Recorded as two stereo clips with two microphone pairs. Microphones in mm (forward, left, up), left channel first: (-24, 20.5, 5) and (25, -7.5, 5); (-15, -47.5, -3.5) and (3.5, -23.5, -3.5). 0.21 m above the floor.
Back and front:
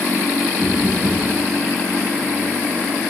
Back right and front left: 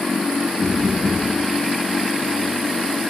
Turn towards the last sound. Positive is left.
turn(degrees=45)